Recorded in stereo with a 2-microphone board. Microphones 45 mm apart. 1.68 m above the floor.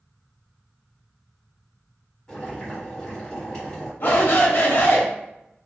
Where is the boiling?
15° left (ahead or behind), 1.5 m.